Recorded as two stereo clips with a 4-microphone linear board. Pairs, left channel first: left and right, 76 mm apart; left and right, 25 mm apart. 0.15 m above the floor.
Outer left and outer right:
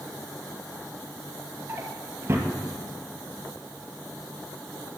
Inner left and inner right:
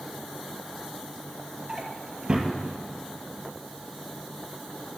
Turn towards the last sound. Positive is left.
turn(degrees=-30)  # may be behind; listen again after turning